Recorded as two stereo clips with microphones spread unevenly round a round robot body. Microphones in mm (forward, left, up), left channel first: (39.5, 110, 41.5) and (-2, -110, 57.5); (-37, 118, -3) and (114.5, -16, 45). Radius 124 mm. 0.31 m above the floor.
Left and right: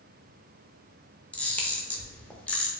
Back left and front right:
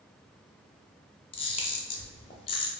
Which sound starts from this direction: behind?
A camera shutter, at 1.3 s.